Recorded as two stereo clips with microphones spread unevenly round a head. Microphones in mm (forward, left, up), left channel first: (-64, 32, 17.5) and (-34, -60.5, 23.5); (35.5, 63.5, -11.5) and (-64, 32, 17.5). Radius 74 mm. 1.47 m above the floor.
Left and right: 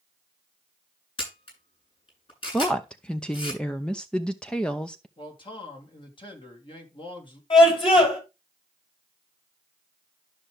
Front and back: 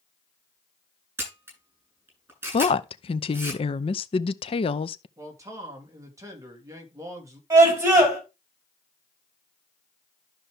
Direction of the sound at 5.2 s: 140° left.